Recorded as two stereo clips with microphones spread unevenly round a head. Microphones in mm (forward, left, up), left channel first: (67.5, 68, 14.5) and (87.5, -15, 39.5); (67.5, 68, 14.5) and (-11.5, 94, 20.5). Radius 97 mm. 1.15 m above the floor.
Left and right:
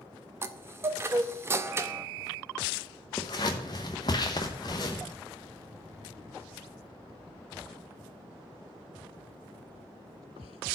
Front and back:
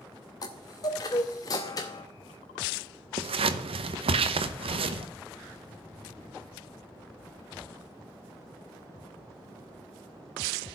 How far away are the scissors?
About 0.7 m.